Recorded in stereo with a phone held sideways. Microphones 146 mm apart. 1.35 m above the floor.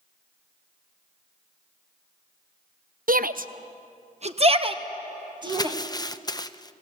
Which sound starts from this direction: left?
Crumpling, at 5.5 s.